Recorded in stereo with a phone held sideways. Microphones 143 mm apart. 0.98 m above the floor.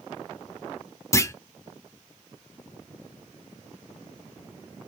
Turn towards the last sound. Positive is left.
turn(degrees=20)  # may be behind; listen again after turning